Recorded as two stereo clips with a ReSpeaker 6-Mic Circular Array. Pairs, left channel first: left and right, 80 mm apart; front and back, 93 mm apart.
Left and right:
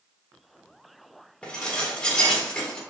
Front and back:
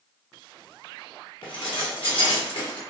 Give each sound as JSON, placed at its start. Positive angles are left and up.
{"t": 1.4, "sound": "dishes clattering", "azimuth_deg": 15, "distance_m": 1.0}